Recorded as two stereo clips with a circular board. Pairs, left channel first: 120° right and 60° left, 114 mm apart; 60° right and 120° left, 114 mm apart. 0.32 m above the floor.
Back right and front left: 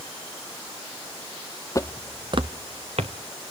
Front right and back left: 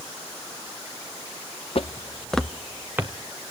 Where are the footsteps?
65° right, 0.6 m; by 3.1 s 50° left, 1.6 m.